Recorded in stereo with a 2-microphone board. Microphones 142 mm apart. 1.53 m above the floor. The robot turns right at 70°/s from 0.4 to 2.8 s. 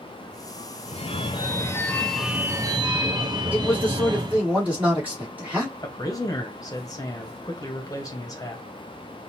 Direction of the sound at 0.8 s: 90° left.